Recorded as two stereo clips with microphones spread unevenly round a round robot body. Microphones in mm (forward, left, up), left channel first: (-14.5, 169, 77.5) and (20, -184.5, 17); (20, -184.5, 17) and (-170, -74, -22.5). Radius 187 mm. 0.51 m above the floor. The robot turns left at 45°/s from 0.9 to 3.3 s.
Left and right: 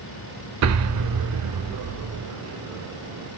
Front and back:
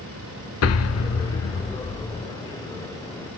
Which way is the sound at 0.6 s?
45° right.